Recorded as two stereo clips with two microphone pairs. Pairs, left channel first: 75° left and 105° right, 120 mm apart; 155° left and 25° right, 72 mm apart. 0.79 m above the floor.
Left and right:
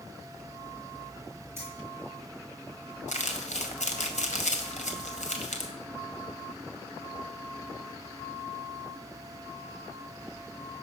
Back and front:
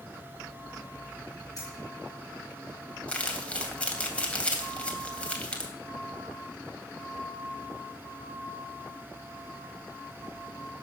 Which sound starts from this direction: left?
Crumpling, at 3.1 s.